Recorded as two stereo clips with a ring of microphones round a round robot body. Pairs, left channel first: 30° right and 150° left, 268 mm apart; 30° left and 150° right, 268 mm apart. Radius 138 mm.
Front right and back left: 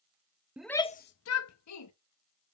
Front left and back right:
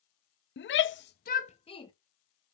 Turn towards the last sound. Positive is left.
turn(degrees=-45)